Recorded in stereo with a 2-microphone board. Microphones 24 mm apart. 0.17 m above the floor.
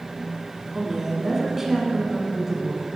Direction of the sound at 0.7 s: 15° right (ahead or behind).